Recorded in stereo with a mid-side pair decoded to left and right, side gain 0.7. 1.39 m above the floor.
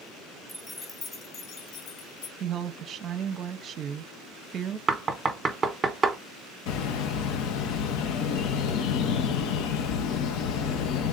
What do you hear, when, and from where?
0.5 s keys jangling: straight ahead, 1.2 m; by 2.3 s 65° left, 2 m
2.4 s a woman speaking: 40° right, 0.7 m
4.9 s knocking: 25° right, 1.1 m
6.7 s a bird: 60° left, 0.8 m